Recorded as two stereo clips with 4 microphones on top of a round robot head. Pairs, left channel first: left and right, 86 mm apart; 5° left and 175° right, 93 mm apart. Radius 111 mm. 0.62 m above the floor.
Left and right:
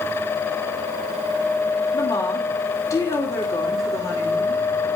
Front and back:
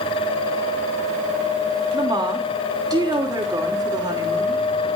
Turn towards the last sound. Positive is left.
turn(degrees=140)